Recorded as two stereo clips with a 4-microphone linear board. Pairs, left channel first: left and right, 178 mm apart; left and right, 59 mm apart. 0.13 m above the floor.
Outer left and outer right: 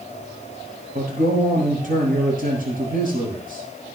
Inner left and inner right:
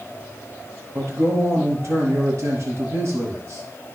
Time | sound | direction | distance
0.9 | a man speaking | 50° right (ahead or behind) | 3.5 m